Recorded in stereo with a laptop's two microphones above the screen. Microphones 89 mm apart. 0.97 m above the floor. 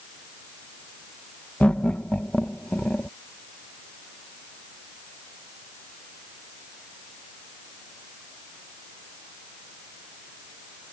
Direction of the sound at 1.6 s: 15° left (ahead or behind).